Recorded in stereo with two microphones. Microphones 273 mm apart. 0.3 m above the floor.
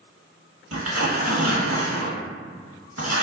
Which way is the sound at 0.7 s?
60° right (ahead or behind).